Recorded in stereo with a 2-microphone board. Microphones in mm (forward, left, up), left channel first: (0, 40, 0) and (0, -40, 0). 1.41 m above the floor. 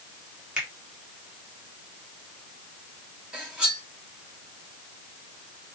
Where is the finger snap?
15° right (ahead or behind), 1.5 m.